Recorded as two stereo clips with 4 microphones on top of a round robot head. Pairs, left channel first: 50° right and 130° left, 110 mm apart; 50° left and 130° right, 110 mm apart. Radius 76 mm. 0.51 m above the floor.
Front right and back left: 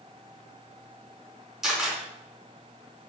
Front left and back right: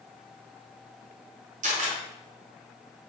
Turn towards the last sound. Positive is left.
turn(degrees=-140)